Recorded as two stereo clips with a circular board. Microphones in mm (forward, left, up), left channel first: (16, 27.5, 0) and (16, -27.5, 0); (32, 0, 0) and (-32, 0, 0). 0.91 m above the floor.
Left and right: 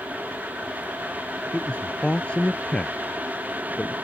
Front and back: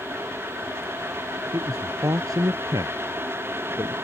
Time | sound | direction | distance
1.5 | a man speaking | 160° left | ?